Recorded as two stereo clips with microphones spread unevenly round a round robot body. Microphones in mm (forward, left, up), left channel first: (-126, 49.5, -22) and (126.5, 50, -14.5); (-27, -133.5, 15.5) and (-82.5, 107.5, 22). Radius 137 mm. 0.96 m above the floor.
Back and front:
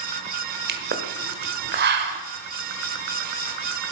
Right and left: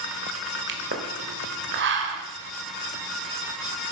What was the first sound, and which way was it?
A pop, 50° left.